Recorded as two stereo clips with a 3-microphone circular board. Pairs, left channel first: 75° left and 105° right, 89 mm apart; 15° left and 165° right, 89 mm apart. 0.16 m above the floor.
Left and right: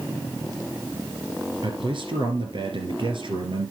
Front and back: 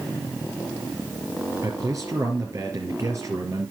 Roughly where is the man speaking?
Behind right.